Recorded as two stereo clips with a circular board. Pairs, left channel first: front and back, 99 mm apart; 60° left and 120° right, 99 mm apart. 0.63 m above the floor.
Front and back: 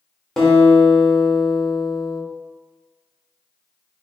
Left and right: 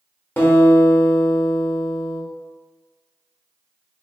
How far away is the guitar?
About 1.1 m.